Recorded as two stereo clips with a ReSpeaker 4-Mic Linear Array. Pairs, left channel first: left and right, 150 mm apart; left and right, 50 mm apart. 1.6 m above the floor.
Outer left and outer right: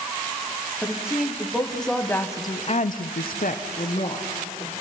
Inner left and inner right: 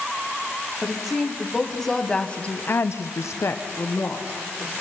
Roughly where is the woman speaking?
Centre.